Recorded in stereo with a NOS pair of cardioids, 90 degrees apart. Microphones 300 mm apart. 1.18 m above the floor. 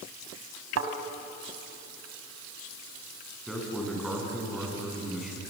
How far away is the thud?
About 3.5 m.